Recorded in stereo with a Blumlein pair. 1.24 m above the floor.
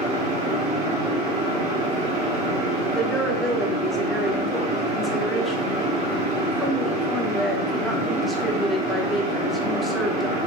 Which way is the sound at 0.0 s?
30° right.